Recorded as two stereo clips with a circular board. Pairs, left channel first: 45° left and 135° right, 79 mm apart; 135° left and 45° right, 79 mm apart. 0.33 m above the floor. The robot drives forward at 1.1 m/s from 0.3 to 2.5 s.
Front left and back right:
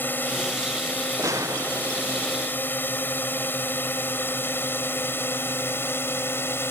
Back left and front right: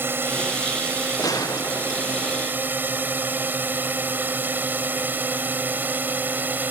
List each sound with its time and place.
0.0 s a drone: 5° right; by 6.7 s 5° left
1.2 s a gunshot: 175° left